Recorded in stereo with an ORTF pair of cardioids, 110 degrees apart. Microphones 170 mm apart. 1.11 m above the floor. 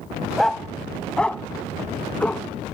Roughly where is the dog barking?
Ahead.